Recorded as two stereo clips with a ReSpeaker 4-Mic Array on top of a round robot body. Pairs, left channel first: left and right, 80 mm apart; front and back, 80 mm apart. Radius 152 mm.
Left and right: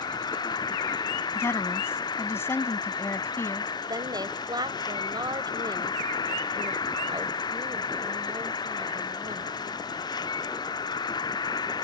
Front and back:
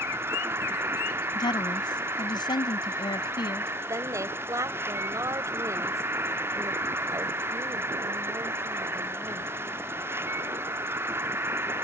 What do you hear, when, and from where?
0.0 s an insect: 120° left
1.4 s a woman speaking: 30° left
3.9 s a woman speaking: 125° right